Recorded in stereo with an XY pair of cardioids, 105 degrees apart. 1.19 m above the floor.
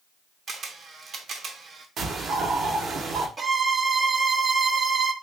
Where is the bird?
55° right, 0.9 m.